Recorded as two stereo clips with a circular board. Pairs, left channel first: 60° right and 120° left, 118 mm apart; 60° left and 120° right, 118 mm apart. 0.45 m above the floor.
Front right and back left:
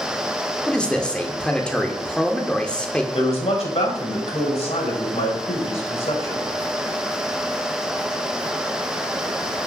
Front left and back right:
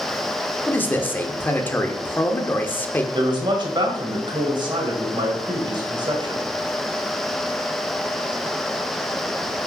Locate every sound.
0.7 s a man speaking: 10° left, 0.9 m
3.1 s a man speaking: 75° right, 1.9 m